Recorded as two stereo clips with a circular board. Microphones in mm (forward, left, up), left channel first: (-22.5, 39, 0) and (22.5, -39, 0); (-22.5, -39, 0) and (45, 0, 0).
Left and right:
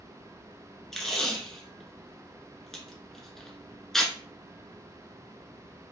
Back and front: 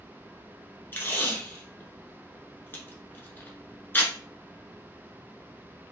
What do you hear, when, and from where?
0.9 s tape being pulled: 160° right, 0.7 m